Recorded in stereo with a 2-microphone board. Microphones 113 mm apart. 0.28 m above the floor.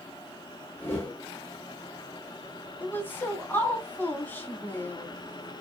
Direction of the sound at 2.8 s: 15° left (ahead or behind).